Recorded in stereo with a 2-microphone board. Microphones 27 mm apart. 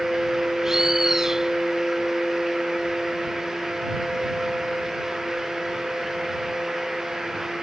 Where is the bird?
20° right (ahead or behind).